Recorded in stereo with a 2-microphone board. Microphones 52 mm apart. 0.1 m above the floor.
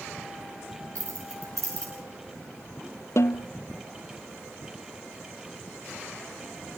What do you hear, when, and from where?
0.9 s keys jangling: 75° right (ahead or behind), 9 m
3.2 s a snare drum: 60° left (ahead or behind), 1.1 m